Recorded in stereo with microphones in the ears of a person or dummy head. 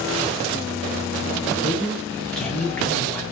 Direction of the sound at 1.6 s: 5° left (ahead or behind).